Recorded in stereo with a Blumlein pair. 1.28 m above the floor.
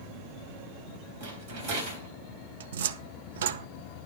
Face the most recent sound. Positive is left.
turn(degrees=-60)